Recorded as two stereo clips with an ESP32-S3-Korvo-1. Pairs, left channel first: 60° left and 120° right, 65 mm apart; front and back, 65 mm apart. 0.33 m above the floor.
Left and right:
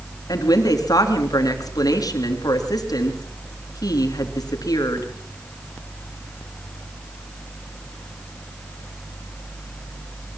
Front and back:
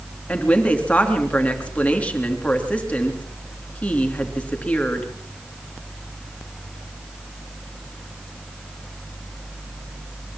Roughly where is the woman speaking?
Left.